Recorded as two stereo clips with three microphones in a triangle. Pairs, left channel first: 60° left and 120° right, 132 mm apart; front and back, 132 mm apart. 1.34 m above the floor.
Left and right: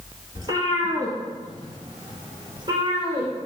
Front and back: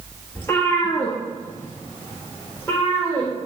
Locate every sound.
0.3 s a cat meowing: 70° right, 2 m